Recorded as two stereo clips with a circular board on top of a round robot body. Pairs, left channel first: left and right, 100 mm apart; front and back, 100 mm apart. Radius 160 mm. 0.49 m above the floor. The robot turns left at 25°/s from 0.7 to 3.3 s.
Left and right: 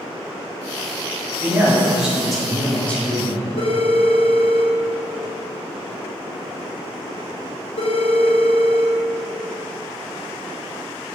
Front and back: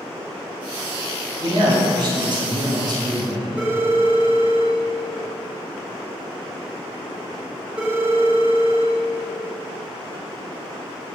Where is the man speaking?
155° right, 1.5 m; by 3.5 s 155° left, 1.5 m.